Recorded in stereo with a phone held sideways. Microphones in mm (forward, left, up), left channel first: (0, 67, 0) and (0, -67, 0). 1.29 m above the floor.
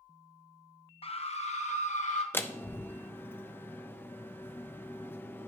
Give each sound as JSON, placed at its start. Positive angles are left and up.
{"t": 1.0, "sound": "a scream", "side_deg": 45, "distance_m": 0.8}
{"t": 2.3, "sound": "a door slam", "side_deg": 15, "distance_m": 0.5}